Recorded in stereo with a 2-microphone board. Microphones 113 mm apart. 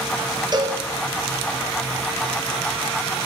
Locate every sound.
0.5 s a cowbell: 40° right (ahead or behind), 6 m